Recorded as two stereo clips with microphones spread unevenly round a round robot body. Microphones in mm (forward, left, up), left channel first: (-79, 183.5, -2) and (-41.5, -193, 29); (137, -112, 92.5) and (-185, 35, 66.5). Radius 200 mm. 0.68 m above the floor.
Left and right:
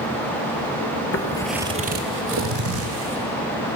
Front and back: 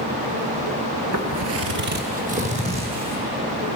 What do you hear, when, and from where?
1.1 s footsteps: 135° left, 0.8 m; by 3.2 s 130° right, 3 m